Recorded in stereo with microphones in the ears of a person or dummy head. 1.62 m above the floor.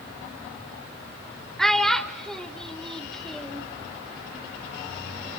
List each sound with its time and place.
1.6 s a child speaking: centre (ahead or behind), 0.8 m